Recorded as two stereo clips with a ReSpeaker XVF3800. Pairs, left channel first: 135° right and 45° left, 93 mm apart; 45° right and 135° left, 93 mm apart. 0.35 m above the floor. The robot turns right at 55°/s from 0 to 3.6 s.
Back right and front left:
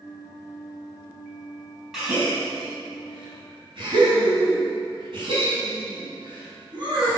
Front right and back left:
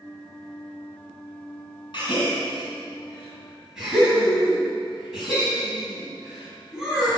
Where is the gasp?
40° right, 2.5 m; by 7.2 s 50° left, 2.5 m.